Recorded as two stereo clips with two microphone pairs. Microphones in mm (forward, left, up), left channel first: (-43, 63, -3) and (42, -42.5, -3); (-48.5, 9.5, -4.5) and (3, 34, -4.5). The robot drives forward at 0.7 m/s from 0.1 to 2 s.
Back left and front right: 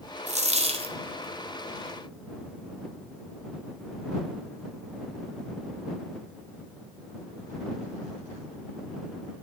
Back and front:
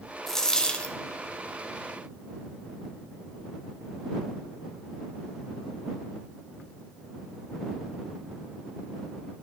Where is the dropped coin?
70° right, 1.9 m; by 0.9 s 90° right, 1.8 m.